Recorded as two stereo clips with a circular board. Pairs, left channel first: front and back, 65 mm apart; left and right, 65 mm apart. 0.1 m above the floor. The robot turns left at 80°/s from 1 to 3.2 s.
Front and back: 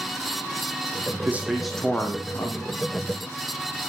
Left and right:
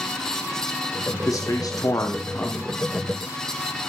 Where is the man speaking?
125° left, 3.5 m; by 2.8 s straight ahead, 3.5 m.